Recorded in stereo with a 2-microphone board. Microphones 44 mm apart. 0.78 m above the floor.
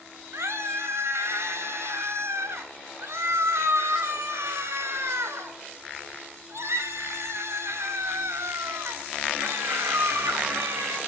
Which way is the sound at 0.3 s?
80° right.